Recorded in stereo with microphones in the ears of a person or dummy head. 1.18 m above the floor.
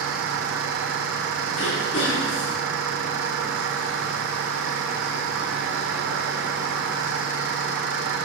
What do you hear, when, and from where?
0.0 s an insect: 70° right (ahead or behind), 1.5 m
1.6 s throat clearing: 65° left (ahead or behind), 3.5 m